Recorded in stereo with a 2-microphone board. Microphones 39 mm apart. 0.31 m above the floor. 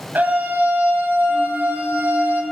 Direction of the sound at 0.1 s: 50° right (ahead or behind).